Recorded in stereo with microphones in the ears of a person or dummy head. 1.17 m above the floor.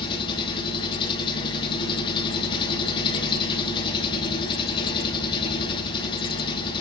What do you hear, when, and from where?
0.0 s an engine running: 30° left (ahead or behind), 3 m